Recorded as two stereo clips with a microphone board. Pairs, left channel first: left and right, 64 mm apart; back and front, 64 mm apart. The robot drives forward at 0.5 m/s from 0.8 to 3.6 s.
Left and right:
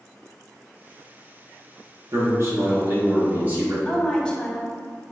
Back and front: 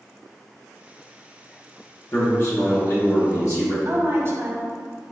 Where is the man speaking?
120° right, 1.0 m; by 3.8 s 150° right, 1.5 m.